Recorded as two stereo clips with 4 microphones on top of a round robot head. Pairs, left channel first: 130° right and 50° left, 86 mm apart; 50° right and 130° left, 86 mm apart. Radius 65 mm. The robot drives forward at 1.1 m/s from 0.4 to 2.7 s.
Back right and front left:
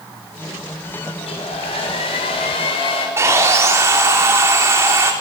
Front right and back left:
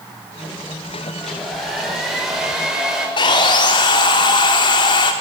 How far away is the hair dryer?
About 6 m.